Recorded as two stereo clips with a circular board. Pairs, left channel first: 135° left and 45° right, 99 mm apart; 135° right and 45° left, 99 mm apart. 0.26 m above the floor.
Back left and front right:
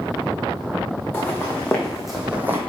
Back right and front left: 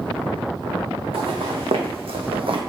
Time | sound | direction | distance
1.1 | footsteps | 65° left | 1.6 m